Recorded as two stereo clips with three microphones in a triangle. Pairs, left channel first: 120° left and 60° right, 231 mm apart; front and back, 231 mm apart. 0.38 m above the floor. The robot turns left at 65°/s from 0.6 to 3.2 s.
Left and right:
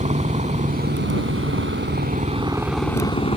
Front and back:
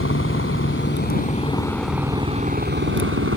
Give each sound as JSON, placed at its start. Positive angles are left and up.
{"t": 0.0, "sound": "a helicopter", "azimuth_deg": -5}